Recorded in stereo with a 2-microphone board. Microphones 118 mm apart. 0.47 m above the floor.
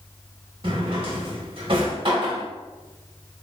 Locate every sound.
0.6 s a drawer: 45° right (ahead or behind), 0.7 m